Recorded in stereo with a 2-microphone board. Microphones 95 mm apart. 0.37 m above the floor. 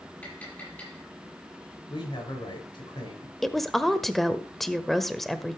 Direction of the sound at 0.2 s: 20° left (ahead or behind).